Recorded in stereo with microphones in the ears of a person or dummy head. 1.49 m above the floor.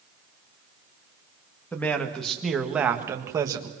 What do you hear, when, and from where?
1.7 s a man speaking: 5° left (ahead or behind), 2 m; by 3.7 s 25° right (ahead or behind), 1.8 m